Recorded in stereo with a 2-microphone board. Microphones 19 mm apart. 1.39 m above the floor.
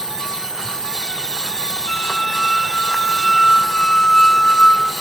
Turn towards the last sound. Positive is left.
turn(degrees=60)  # may be behind; listen again after turning